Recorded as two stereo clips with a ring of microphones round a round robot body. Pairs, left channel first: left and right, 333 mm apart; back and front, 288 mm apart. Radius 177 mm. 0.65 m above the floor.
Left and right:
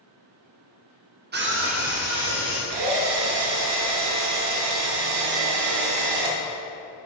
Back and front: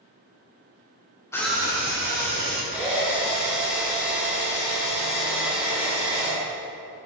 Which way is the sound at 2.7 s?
85° right.